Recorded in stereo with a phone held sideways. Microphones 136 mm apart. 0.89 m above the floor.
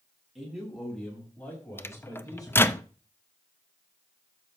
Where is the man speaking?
Centre (ahead or behind), 5.5 m; by 2.8 s 35° left (ahead or behind), 4.5 m.